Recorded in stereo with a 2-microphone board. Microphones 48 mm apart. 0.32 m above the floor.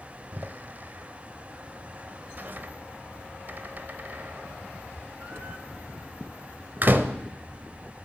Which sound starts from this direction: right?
A door slam, at 0.3 s.